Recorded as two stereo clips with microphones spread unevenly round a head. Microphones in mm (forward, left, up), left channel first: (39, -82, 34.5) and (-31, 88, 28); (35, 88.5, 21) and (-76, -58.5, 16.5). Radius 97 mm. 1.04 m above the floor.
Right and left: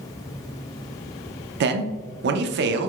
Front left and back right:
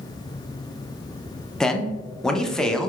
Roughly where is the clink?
I don't hear a clink.